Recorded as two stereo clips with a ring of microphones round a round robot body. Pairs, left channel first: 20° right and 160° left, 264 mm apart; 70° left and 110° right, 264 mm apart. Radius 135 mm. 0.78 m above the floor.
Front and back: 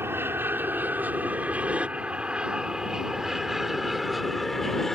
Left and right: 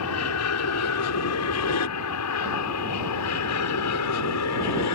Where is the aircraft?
75° left; by 5.0 s 65° left.